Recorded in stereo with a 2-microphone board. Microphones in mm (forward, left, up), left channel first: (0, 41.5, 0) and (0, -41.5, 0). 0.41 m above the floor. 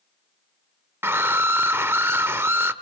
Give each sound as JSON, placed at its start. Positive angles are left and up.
{"t": 1.0, "sound": "a scream", "side_deg": -30, "distance_m": 1.0}